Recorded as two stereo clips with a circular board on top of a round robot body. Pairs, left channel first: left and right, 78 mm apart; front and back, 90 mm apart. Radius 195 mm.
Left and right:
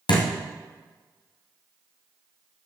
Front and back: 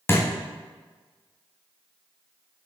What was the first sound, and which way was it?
A thud, 65° left.